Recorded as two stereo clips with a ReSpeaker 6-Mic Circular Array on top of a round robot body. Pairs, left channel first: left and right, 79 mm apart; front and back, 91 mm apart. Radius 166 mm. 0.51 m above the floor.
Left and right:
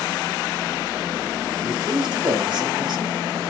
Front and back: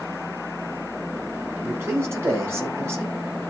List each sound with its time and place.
1.6 s a man speaking: 115° right, 5 m